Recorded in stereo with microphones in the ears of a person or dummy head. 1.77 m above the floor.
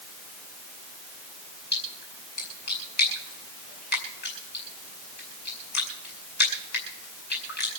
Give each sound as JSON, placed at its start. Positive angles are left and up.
{"t": 1.7, "sound": "a splash", "side_deg": 55, "distance_m": 5.0}